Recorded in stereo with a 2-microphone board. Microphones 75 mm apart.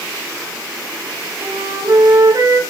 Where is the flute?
45° right (ahead or behind), 2.5 m.